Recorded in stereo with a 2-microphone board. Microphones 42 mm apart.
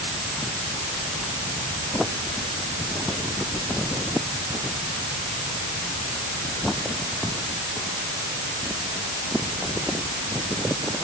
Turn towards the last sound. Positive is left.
No sound to turn to.